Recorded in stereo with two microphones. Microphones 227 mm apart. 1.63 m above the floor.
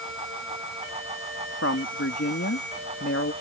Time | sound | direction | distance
1.6 | a woman speaking | 75° left (ahead or behind) | ?